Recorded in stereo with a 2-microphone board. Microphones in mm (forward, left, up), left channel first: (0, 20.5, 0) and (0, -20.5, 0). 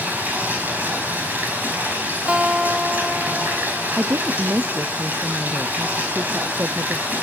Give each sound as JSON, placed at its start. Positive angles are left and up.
{"t": 0.0, "sound": "running water", "side_deg": -45, "distance_m": 5.0}
{"t": 2.3, "sound": "a guitar", "side_deg": -25, "distance_m": 0.8}
{"t": 4.0, "sound": "a woman speaking", "side_deg": -80, "distance_m": 0.6}